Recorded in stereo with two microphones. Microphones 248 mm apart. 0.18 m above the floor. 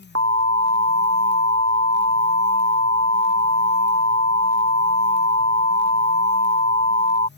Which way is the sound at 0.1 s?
70° right (ahead or behind).